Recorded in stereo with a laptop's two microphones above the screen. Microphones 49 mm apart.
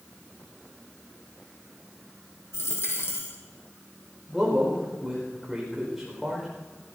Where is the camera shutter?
No camera shutter in this recording.